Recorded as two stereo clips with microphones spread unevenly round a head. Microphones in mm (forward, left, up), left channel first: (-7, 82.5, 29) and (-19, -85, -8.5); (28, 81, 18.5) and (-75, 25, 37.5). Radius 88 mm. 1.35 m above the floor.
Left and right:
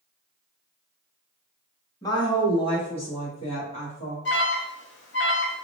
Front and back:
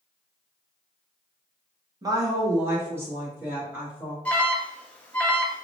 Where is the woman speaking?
155° left, 1.3 m; by 4.2 s 135° left, 3 m.